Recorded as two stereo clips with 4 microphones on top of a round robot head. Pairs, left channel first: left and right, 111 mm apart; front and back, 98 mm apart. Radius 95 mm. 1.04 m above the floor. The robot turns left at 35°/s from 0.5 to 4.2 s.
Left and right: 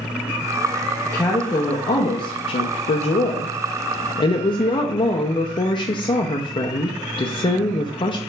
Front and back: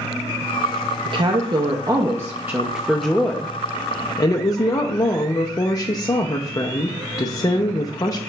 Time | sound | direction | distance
1.1 | a woman speaking | 160° left | 0.5 m